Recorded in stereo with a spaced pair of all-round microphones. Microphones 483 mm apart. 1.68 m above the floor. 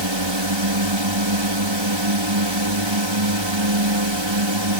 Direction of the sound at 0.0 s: 65° right (ahead or behind).